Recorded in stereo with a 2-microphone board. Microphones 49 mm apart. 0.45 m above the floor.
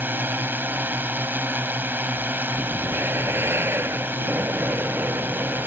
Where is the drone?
50° right (ahead or behind).